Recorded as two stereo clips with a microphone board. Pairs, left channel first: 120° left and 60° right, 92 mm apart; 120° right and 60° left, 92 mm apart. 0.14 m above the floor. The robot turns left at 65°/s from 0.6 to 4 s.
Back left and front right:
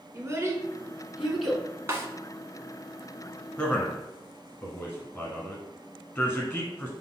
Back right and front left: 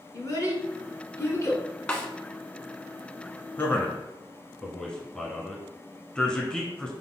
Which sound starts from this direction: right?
A child speaking, at 0.1 s.